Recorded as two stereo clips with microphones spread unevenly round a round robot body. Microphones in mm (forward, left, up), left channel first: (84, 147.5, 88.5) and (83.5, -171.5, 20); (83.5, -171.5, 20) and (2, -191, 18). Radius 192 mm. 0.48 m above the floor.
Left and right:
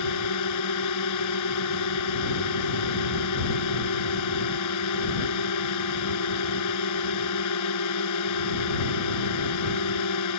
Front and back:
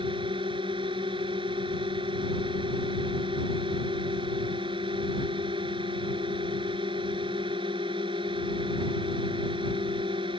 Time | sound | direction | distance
0.0 | a drone | 135° left | ?